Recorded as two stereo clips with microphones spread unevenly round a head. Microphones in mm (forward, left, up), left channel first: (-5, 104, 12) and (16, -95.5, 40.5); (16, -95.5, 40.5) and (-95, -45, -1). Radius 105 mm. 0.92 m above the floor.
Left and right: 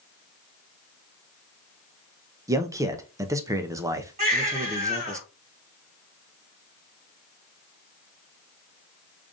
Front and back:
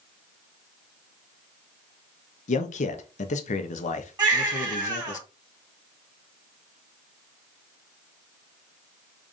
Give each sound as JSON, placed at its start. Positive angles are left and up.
{"t": 2.5, "sound": "a man speaking", "azimuth_deg": -5, "distance_m": 0.6}
{"t": 4.2, "sound": "a baby crying", "azimuth_deg": -140, "distance_m": 2.0}